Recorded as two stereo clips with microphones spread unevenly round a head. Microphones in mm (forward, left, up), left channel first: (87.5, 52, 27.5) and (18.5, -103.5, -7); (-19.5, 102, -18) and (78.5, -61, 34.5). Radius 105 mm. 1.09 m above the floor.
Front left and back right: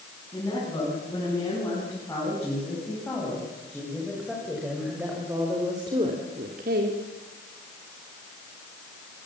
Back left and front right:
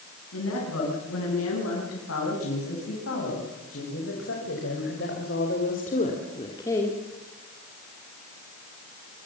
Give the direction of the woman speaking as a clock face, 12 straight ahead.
7 o'clock.